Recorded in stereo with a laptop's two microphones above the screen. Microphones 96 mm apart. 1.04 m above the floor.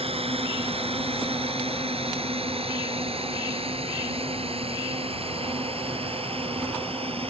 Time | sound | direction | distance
0.0 | a drone | 85° right | ?